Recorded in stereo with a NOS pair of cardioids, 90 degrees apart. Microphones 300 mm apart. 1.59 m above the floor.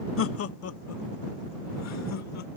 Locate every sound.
0.2 s laughter: 50° left; by 2.6 s 65° left